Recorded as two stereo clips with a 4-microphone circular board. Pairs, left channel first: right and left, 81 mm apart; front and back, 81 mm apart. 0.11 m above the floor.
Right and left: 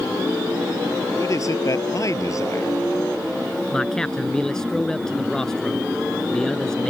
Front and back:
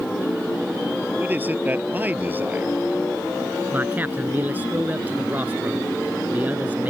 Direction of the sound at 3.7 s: 160° right.